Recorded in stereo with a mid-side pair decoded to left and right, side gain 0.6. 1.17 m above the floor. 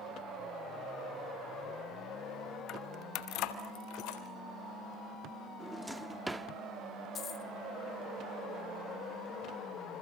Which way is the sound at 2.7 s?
55° left.